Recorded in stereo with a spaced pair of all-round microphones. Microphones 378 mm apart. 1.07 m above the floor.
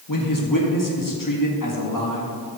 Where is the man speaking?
55° left (ahead or behind), 1.8 m.